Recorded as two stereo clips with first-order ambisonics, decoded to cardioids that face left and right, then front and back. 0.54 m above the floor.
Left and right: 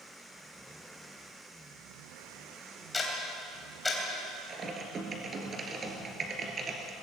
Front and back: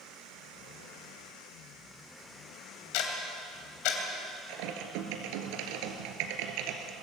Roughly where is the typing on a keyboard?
Behind.